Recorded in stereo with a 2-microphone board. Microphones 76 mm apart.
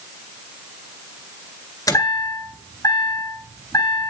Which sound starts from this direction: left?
A chime, at 1.9 s.